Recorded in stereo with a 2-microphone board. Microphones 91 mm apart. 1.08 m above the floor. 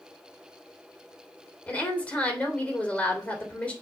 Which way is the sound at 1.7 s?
15° left (ahead or behind).